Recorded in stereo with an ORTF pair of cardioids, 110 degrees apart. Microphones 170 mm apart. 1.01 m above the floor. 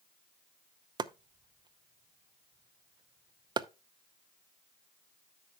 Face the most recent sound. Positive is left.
turn(degrees=-25)